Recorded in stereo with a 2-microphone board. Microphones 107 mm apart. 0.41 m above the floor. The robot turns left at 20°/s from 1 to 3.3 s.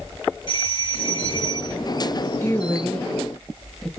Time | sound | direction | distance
0.5 | a doorbell | 55° left (ahead or behind) | 2.5 m
2.4 | a woman speaking | 20° left (ahead or behind) | 1.4 m